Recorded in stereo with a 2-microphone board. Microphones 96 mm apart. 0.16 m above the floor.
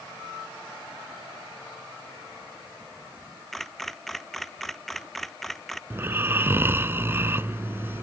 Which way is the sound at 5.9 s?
25° right (ahead or behind).